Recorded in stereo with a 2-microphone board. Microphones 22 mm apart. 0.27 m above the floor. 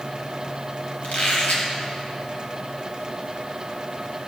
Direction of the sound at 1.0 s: 75° left (ahead or behind).